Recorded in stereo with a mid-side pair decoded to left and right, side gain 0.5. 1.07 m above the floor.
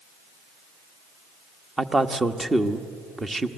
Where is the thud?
I don't hear a thud.